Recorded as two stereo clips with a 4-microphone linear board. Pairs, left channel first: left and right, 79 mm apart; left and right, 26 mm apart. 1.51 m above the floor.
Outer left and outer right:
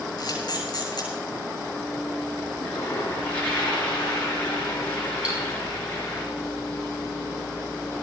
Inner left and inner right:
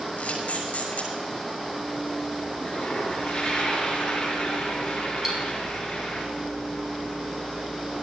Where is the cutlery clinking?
15° right (ahead or behind), 6.5 m.